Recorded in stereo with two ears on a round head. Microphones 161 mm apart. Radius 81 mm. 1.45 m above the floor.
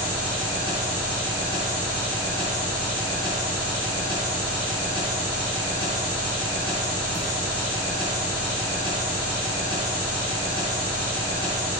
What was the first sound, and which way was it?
An engine running, 40° right (ahead or behind).